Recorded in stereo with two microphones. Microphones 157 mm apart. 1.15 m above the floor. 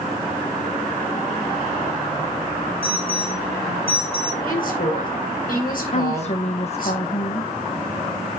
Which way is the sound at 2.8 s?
40° left (ahead or behind).